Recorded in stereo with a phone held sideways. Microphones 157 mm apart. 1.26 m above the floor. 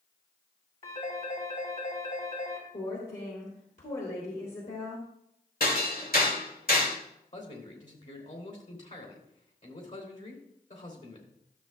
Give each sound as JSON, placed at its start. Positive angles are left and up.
{"t": 0.8, "sound": "a phone ringing", "side_deg": 60, "distance_m": 3.5}
{"t": 2.7, "sound": "a woman speaking", "side_deg": 55, "distance_m": 3.0}
{"t": 5.6, "sound": "hammering", "side_deg": 70, "distance_m": 2.0}
{"t": 7.3, "sound": "a man speaking", "side_deg": 55, "distance_m": 3.0}